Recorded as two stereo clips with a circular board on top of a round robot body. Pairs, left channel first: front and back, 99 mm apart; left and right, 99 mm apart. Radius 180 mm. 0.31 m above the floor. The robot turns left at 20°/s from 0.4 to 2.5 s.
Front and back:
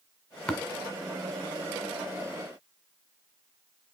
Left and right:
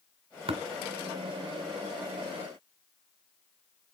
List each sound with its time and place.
0.5 s tapping: 80° right, 1.5 m